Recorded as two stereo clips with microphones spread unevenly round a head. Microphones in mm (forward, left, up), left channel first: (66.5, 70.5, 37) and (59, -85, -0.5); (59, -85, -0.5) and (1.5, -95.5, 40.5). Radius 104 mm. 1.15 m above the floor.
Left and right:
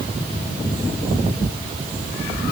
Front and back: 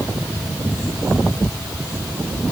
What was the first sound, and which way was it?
Only background noise.